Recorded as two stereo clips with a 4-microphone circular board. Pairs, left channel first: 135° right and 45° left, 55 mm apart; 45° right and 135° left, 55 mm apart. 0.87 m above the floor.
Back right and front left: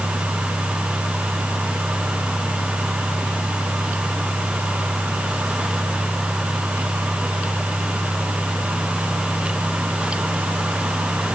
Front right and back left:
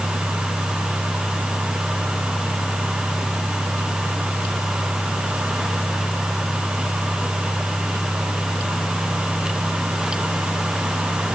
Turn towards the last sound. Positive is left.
No sound to turn to.